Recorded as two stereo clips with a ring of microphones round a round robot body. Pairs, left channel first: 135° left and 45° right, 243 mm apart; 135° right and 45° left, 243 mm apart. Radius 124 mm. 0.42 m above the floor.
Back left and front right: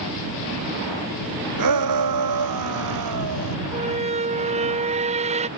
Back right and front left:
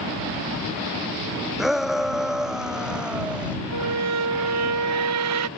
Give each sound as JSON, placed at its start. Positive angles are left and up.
{"t": 1.6, "sound": "a shout", "azimuth_deg": -45}
{"t": 3.7, "sound": "a squeak", "azimuth_deg": 20}